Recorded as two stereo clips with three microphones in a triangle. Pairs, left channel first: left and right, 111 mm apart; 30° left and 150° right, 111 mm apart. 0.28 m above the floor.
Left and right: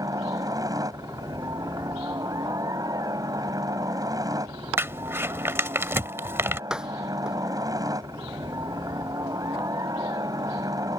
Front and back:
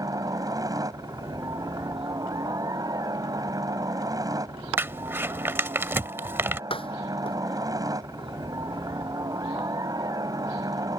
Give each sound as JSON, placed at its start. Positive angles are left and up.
{"t": 0.0, "sound": "a helicopter", "azimuth_deg": -120}
{"t": 4.8, "sound": "crumpling", "azimuth_deg": -120}
{"t": 6.7, "sound": "a door slam", "azimuth_deg": -5}